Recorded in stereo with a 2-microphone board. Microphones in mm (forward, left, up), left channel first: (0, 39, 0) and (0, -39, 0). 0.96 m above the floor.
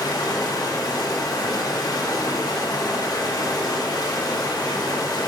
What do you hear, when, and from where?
0.0 s running water: 50° left (ahead or behind), 1.1 m